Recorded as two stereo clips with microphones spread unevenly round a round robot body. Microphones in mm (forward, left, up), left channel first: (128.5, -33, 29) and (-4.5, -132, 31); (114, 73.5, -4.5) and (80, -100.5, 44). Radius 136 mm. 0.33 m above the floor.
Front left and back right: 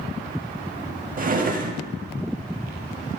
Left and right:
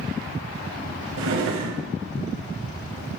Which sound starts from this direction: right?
A drawer, at 1.2 s.